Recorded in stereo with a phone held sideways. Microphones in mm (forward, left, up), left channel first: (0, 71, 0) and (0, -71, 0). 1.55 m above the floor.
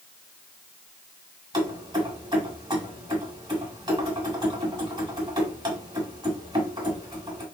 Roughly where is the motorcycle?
I don't hear a motorcycle.